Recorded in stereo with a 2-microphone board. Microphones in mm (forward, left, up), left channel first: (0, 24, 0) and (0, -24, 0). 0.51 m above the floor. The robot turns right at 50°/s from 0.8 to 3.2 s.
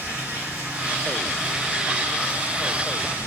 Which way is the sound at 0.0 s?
40° right.